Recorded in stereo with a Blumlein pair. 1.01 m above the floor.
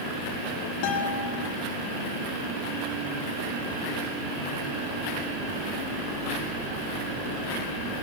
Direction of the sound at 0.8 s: 45° left.